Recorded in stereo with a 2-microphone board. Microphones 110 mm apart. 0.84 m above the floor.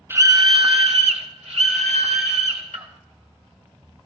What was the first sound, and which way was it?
A scream, 20° right (ahead or behind).